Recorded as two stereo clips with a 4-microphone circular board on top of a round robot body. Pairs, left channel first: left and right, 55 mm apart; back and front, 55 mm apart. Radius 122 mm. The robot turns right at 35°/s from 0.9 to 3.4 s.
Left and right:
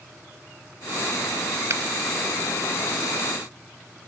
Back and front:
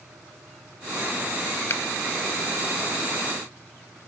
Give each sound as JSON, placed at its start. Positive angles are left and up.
{"t": 1.7, "sound": "a finger snap", "azimuth_deg": -130}